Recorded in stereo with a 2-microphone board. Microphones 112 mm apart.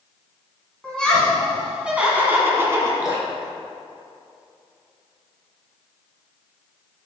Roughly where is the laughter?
Centre.